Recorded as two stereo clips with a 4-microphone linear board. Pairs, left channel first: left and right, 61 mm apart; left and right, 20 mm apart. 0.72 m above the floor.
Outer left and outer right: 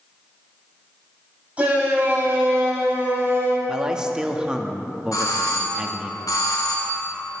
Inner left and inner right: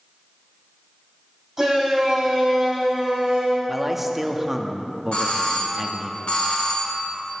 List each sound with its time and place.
1.6 s a shout: 20° right (ahead or behind), 5.5 m; by 3.6 s 40° right (ahead or behind), 4.5 m
3.7 s a man speaking: 15° right (ahead or behind), 1.3 m
5.1 s a doorbell: 70° left (ahead or behind), 4 m